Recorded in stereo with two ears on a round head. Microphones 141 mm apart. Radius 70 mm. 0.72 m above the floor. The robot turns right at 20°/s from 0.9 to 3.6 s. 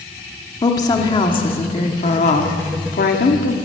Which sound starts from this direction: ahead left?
A woman speaking, at 0.6 s.